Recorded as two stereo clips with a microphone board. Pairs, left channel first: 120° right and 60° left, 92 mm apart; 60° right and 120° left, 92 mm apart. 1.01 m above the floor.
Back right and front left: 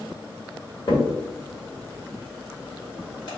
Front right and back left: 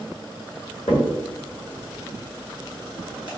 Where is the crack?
80° right, 1.6 m.